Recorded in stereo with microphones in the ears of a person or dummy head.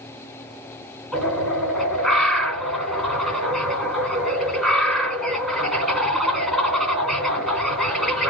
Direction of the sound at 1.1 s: Centre (ahead or behind).